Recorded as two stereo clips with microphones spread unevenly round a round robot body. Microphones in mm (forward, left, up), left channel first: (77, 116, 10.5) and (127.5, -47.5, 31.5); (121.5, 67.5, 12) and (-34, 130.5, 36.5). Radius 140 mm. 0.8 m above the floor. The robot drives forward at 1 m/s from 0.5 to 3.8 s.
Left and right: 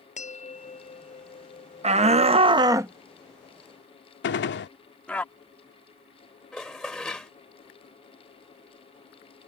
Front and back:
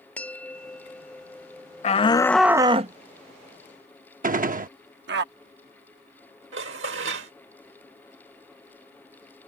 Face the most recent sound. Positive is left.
turn(degrees=-165)